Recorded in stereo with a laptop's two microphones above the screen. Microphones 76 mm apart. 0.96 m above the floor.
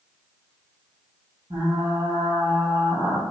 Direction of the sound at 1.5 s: 70° right (ahead or behind).